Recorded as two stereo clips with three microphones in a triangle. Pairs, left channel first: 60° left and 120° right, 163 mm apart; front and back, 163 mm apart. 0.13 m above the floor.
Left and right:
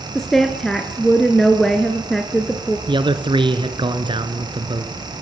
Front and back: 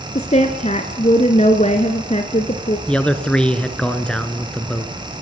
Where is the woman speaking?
30° right, 1.6 m.